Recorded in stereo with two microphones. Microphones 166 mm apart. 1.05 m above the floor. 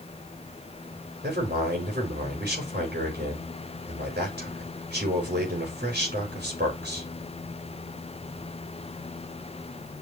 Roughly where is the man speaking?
Right.